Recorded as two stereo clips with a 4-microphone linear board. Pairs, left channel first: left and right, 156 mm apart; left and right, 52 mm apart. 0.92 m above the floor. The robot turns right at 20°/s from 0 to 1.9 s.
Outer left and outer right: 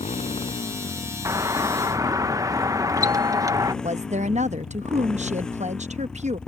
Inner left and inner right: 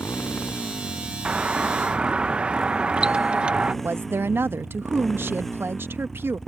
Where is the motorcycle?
140° left; by 6.5 s 175° left.